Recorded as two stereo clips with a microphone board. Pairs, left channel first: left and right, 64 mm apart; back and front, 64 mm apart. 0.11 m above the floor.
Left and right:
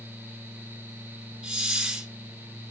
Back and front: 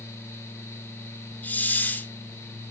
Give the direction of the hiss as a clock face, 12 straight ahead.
5 o'clock.